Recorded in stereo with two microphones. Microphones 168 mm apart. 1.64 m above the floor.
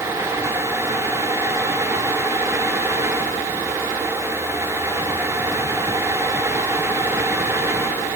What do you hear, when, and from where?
Only background noise.